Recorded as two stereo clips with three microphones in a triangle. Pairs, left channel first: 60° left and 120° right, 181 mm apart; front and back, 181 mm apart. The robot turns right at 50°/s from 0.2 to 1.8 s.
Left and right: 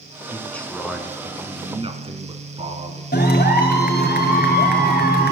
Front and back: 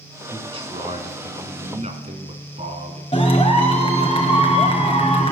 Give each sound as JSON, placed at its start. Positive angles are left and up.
{"t": 0.3, "sound": "a man speaking", "azimuth_deg": 125, "distance_m": 2.0}
{"t": 3.1, "sound": "a clap", "azimuth_deg": 50, "distance_m": 2.5}